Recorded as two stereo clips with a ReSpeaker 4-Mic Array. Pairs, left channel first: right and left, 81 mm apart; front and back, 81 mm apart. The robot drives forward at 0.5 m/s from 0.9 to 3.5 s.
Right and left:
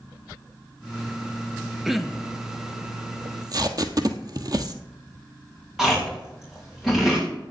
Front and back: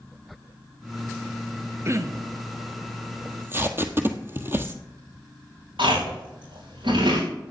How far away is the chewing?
About 5 m.